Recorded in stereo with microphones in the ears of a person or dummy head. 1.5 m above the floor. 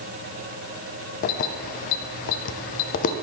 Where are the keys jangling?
45° left (ahead or behind), 0.5 m.